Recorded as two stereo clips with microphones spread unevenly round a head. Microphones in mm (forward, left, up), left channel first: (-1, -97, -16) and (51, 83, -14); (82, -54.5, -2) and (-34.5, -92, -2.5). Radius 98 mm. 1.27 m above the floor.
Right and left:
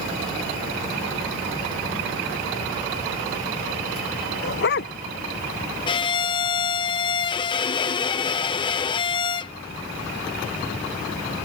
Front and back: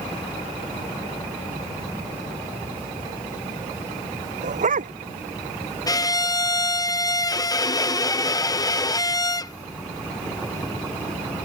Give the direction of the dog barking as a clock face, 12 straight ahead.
5 o'clock.